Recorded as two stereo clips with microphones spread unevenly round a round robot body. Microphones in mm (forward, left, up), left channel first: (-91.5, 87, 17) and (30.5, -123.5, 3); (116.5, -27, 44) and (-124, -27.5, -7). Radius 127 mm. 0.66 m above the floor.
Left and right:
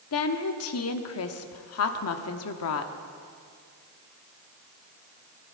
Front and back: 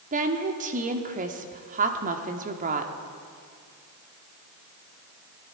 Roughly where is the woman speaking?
Behind left.